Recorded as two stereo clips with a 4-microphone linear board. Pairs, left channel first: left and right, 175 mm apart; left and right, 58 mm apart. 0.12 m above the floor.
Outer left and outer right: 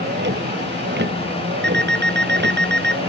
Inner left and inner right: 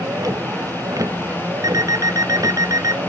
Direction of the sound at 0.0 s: 85° right.